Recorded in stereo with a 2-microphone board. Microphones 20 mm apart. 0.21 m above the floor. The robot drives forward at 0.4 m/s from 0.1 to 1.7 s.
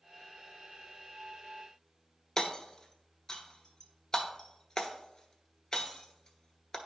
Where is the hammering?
25° left (ahead or behind), 0.9 m.